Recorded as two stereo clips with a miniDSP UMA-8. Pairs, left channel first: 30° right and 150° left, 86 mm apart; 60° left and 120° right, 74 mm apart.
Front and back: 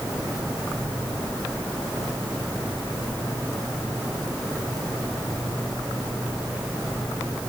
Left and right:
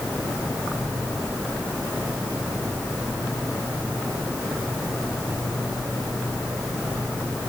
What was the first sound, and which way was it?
Only background noise.